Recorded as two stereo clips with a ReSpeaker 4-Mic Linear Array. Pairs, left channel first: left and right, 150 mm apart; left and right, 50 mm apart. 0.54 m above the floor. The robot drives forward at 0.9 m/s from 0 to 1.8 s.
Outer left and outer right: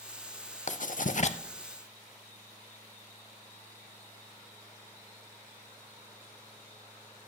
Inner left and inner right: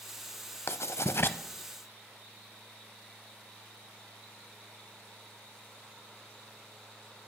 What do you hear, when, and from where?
0.7 s writing: 55° left (ahead or behind), 0.6 m; by 1.4 s 45° left (ahead or behind), 0.6 m